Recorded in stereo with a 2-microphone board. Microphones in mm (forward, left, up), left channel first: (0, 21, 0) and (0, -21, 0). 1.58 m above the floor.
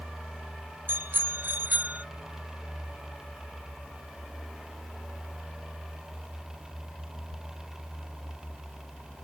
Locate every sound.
0.9 s a bicycle bell: 60° right (ahead or behind); by 2.1 s 40° right (ahead or behind)